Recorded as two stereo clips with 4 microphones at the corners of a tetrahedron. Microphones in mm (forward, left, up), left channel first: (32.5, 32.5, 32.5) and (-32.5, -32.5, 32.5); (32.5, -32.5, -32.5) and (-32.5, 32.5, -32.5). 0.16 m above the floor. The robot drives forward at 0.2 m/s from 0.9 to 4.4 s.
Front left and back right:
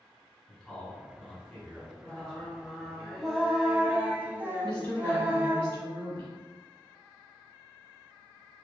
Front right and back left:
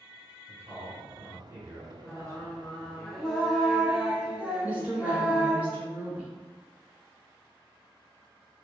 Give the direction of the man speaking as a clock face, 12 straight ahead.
8 o'clock.